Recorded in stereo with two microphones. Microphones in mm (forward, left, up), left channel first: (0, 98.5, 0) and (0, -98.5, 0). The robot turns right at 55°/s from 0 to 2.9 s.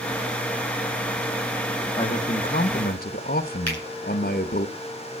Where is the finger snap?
75° right (ahead or behind), 9.5 m.